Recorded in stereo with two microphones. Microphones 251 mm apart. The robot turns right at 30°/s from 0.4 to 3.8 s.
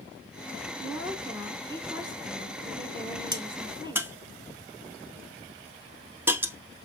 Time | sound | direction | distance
0.8 | a woman speaking | 10° right (ahead or behind) | 1.1 m
3.3 | a crack | 15° right (ahead or behind) | 0.8 m